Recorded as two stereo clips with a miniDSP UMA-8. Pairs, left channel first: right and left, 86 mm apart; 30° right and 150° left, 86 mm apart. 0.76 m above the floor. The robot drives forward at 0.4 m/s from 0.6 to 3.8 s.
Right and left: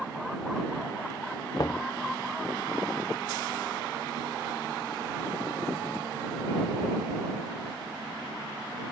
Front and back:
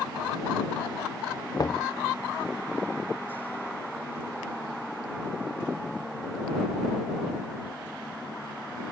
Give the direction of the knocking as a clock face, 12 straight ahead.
2 o'clock.